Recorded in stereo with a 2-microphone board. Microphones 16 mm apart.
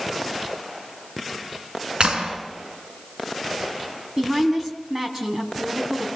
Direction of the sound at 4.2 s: 30° right (ahead or behind).